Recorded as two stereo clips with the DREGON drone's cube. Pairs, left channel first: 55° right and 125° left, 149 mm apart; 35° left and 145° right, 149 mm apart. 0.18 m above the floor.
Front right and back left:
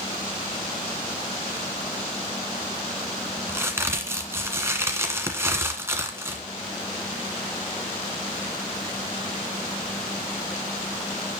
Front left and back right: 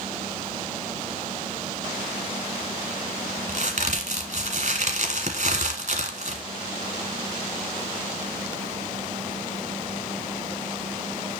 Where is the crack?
165° right, 1.5 m.